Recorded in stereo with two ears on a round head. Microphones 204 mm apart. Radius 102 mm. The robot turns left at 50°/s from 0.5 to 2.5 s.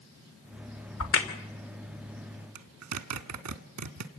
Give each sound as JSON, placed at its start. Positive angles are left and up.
{"t": 1.0, "sound": "a crack", "side_deg": 70, "distance_m": 2.5}
{"t": 2.5, "sound": "a zipper", "side_deg": -75, "distance_m": 1.3}